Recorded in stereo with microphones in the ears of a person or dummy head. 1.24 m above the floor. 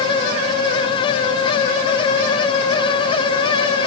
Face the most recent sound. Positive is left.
No sound to turn to.